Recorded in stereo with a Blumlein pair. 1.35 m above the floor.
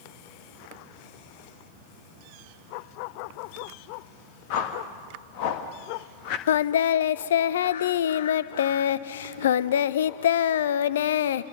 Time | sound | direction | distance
4.5 | a whoosh | 45° left | 1.5 m
6.5 | singing | 60° left | 0.5 m